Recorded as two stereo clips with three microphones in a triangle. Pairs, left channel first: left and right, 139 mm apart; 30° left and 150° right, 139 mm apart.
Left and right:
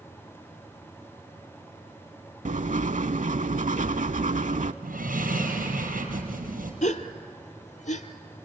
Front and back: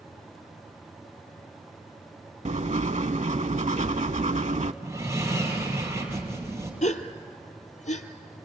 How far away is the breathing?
About 4.5 m.